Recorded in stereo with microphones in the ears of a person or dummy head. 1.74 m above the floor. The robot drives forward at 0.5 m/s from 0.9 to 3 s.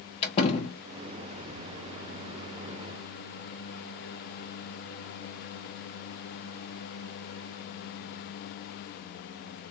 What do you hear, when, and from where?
0.2 s a door slam: 35° left (ahead or behind), 1.2 m